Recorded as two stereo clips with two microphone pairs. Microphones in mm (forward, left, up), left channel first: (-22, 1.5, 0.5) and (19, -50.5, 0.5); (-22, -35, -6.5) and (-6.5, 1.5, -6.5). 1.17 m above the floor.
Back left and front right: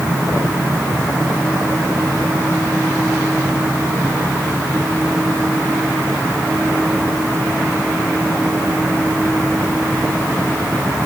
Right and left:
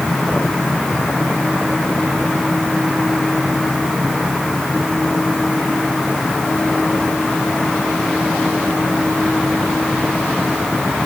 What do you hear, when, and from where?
Only background noise.